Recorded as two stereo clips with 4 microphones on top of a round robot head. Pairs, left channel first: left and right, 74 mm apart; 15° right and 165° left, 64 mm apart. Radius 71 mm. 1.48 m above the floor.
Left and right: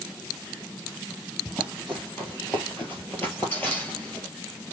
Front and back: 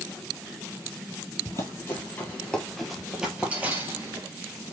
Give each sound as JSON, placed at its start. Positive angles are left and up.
{"t": 1.4, "sound": "running footsteps", "azimuth_deg": 10, "distance_m": 1.8}